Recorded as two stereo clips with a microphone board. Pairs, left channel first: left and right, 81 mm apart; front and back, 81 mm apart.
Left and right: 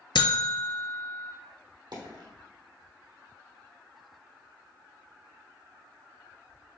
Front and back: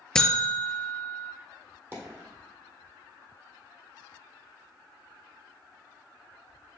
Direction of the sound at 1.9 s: 115° right.